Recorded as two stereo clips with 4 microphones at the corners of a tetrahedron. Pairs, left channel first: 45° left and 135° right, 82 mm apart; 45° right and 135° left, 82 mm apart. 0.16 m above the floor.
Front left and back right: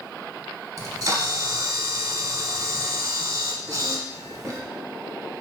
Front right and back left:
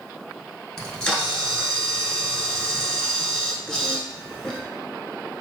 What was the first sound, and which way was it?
A camera shutter, 125° right.